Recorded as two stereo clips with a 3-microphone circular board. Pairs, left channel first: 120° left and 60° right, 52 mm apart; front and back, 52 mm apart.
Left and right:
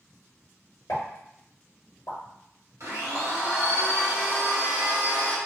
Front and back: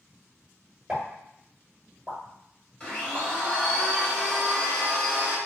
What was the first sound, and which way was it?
A pop, 110° left.